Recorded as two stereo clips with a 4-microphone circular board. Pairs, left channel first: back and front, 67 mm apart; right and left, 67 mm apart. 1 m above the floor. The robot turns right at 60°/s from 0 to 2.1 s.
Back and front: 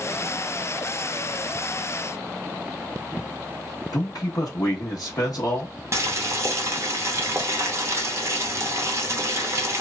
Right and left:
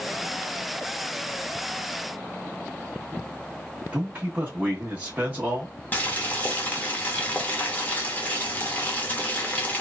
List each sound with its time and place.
3.9 s a man speaking: 160° left, 0.9 m
5.9 s boiling: 30° right, 0.8 m